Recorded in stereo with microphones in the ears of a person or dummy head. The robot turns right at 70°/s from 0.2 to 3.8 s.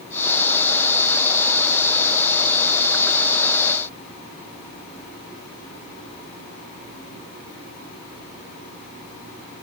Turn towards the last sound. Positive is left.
No sound to turn to.